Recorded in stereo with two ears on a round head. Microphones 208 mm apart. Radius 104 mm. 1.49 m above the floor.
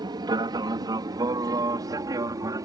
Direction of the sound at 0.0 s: 15° right (ahead or behind).